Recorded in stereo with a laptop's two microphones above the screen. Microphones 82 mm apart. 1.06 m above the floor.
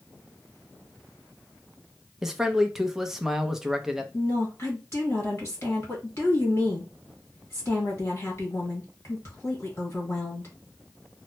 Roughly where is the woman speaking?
Left.